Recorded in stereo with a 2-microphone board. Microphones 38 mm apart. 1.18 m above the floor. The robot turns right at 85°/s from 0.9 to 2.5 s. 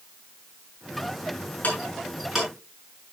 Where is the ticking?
50° left (ahead or behind), 7 m; by 2.5 s 20° right (ahead or behind), 7 m.